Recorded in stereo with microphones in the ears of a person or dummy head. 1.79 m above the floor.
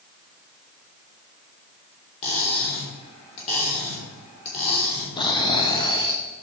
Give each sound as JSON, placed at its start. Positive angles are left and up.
{"t": 2.2, "sound": "cutlery clinking", "side_deg": 30, "distance_m": 3.0}
{"t": 5.2, "sound": "snoring", "side_deg": 30, "distance_m": 0.9}